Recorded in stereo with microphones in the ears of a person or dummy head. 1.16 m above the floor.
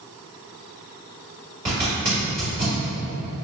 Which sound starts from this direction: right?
A zipper, at 1.6 s.